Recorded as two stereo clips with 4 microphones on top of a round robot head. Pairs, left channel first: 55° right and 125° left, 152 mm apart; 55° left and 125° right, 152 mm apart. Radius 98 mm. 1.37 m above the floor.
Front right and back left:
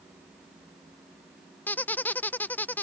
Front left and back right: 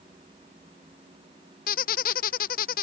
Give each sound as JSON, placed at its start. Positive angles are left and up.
{"t": 1.7, "sound": "a squeak", "azimuth_deg": 25}